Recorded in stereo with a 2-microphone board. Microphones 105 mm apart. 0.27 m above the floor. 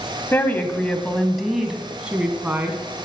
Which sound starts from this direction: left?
A woman speaking, at 0.3 s.